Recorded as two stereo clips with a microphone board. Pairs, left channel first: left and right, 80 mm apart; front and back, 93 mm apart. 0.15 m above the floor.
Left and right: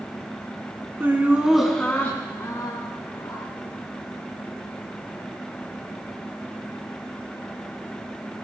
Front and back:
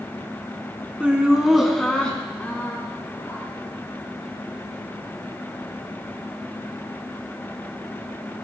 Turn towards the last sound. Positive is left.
turn(degrees=70)